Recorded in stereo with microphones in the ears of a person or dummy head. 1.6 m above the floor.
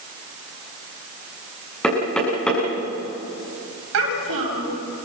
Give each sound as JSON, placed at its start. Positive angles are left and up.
{"t": 1.8, "sound": "knocking", "side_deg": 5, "distance_m": 9.0}
{"t": 3.9, "sound": "a child speaking", "side_deg": -75, "distance_m": 7.5}